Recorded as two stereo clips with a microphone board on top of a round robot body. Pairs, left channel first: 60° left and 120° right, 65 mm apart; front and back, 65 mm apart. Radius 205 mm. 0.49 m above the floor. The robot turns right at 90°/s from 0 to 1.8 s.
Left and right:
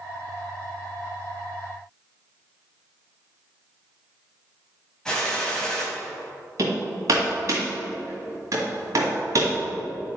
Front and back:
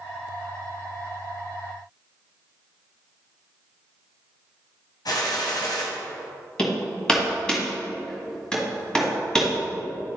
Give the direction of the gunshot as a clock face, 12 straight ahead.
1 o'clock.